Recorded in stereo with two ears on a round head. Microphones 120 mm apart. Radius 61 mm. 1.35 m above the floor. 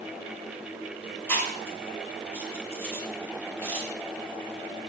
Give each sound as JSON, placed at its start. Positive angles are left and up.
{"t": 1.3, "sound": "chewing", "side_deg": 15, "distance_m": 6.0}